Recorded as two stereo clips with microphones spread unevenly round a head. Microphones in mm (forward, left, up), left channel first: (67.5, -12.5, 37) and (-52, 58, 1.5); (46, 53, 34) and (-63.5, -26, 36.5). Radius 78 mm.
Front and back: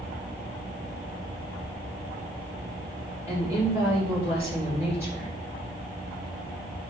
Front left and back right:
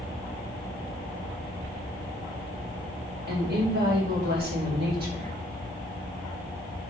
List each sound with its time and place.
3.3 s a woman speaking: 135° right, 4 m